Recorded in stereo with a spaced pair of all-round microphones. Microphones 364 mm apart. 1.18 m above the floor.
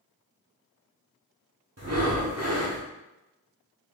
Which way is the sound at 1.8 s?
45° right (ahead or behind).